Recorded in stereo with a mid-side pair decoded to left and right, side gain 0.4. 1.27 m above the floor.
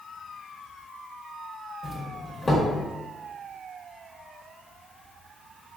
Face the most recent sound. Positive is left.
turn(degrees=30)